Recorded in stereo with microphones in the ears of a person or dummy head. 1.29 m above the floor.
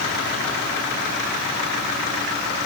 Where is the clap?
No clap in this recording.